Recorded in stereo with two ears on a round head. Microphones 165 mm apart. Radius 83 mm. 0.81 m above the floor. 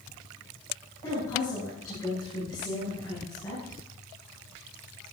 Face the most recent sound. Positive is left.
turn(degrees=15)  # may be behind; listen again after turning